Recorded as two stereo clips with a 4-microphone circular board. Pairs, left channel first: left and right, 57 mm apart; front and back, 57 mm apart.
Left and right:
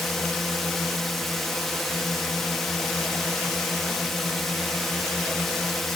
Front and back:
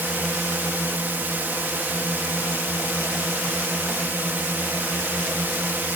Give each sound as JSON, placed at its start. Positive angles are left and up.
{"t": 0.0, "sound": "a drone", "azimuth_deg": 170}